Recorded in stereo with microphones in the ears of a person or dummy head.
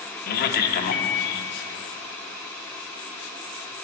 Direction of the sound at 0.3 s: 55° left (ahead or behind).